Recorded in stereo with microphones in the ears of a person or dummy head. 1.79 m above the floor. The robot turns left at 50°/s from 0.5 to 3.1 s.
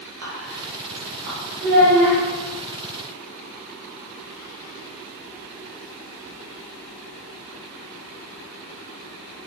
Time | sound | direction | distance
0.2 | whispering | 80° right | 1.6 m
1.6 | a child speaking | 55° right (ahead or behind) | 2.0 m